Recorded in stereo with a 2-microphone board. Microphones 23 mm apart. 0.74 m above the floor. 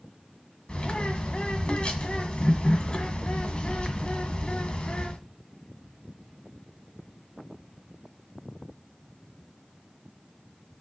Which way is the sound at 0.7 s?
50° left (ahead or behind).